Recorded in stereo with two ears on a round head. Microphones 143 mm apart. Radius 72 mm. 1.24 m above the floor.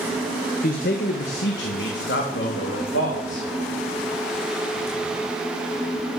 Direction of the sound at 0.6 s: 55° left (ahead or behind).